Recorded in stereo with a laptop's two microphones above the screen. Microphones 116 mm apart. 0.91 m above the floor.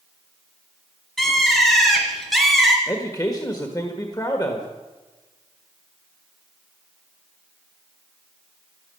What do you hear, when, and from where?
1.2 s a bird: centre (ahead or behind), 3.5 m
2.9 s a man speaking: 30° left (ahead or behind), 1.3 m